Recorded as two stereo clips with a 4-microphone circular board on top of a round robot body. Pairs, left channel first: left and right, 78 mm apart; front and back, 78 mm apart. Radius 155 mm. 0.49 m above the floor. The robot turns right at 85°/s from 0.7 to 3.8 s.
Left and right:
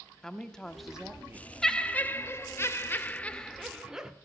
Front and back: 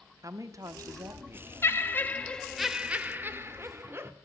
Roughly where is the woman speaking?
Behind.